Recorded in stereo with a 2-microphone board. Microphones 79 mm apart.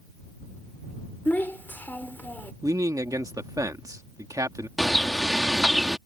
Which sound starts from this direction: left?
A child speaking, at 1.2 s.